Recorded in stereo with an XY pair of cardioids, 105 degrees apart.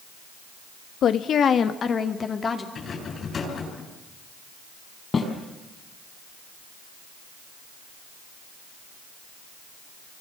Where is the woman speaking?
65° left, 1.3 m; by 2.6 s 35° left, 2.5 m.